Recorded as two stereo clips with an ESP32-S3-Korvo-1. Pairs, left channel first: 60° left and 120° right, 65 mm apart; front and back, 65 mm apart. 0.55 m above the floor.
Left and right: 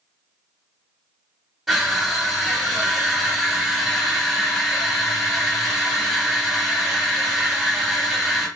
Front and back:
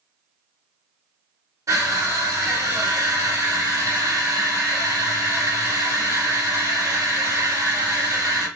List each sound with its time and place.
1.7 s crushing: 155° left, 2.5 m